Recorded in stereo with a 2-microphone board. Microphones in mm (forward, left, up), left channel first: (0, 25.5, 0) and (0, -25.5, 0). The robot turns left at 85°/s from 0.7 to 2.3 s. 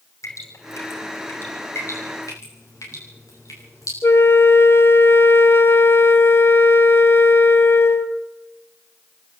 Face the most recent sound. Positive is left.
turn(degrees=50)  # may be behind; listen again after turning